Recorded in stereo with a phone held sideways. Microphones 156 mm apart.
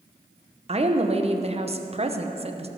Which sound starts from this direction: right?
A woman speaking, at 0.7 s.